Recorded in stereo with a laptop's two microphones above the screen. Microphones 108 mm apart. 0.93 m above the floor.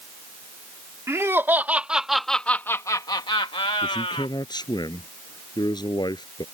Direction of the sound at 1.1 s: 25° right (ahead or behind).